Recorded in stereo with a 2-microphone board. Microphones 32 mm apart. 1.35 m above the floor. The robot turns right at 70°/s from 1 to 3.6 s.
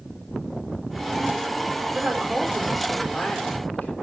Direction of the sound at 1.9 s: 55° right.